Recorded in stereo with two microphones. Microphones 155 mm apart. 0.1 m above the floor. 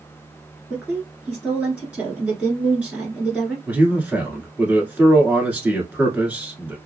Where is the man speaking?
10° right (ahead or behind), 1.2 m.